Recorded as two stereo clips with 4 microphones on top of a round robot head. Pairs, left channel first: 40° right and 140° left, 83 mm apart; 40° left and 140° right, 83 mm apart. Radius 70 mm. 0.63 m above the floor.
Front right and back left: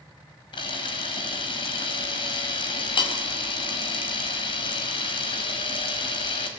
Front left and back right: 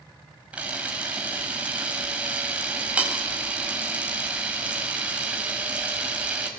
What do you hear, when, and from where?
0.5 s a camera shutter: 65° right, 5.5 m